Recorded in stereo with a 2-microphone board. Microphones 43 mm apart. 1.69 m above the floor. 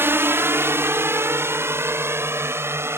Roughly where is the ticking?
I don't hear ticking.